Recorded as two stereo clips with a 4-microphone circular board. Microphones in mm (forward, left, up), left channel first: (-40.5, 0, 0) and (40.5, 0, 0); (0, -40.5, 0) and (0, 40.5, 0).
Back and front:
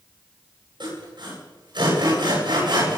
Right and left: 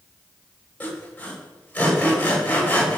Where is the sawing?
15° right, 10 m.